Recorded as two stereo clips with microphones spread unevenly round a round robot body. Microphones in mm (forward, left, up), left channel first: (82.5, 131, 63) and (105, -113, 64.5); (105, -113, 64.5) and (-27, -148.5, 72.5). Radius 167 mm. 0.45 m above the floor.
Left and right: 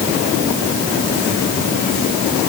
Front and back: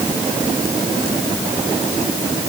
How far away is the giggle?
I don't hear a giggle.